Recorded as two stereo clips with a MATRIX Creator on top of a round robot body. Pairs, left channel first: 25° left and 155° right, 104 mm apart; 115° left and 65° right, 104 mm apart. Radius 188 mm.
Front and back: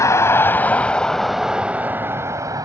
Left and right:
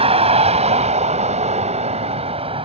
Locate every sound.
0.0 s a vehicle: 40° right; by 2.7 s 100° right